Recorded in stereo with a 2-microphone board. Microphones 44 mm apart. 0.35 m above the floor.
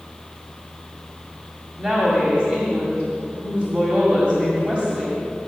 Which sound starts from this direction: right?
A woman speaking, at 1.8 s.